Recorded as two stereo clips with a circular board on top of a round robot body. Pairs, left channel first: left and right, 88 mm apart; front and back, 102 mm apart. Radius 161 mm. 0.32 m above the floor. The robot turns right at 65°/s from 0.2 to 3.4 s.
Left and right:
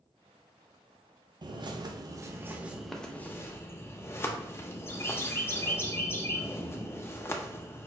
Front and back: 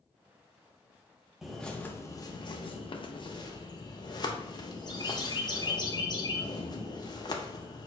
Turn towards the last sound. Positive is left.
turn(degrees=35)